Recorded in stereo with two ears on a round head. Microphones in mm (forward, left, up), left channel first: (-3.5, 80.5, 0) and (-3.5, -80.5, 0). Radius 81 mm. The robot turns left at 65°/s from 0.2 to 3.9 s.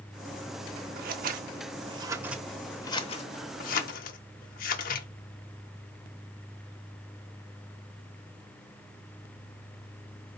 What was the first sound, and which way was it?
Scissors, 50° right (ahead or behind).